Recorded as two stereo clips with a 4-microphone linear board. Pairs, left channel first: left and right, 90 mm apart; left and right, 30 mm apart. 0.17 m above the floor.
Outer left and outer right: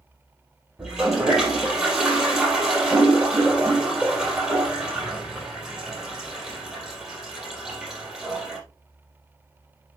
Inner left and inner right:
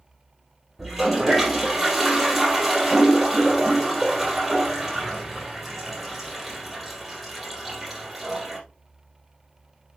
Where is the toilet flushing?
10° right (ahead or behind), 4.5 m.